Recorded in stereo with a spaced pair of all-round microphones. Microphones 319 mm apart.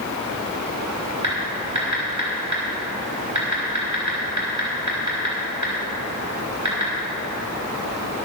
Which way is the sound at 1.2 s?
65° right (ahead or behind).